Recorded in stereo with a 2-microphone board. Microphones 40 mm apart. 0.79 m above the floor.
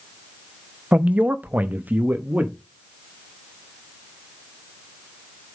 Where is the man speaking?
35° right (ahead or behind), 0.6 m; by 2.5 s 40° right (ahead or behind), 1.1 m.